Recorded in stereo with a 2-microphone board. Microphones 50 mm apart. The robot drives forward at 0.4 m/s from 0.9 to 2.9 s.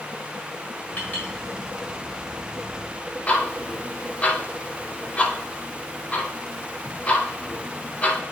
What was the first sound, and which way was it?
A clink, 30° left (ahead or behind).